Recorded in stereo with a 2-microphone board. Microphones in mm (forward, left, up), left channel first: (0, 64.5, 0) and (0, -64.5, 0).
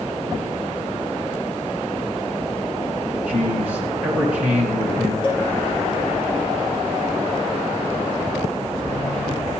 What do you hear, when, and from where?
3.3 s a man speaking: 10° right (ahead or behind), 2.5 m
5.2 s a cowbell: 40° left (ahead or behind), 4 m